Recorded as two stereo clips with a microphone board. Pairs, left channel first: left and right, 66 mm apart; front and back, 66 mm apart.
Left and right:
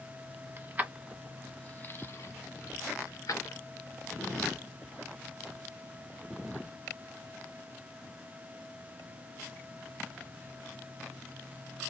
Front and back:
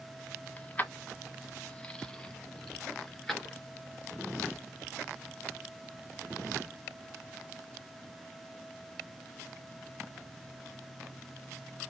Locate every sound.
0.6 s keys jangling: 55° right, 0.9 m; by 3.6 s 90° left, 1.8 m